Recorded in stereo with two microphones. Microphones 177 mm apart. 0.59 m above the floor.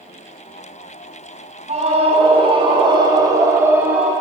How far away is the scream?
About 5.5 m.